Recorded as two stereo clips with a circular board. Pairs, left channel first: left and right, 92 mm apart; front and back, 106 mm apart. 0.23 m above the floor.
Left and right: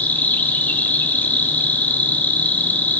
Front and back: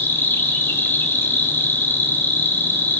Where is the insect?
40° left, 1.8 m.